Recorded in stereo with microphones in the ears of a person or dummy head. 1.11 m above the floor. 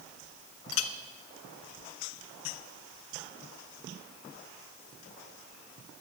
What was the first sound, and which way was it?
A clink, 85° left.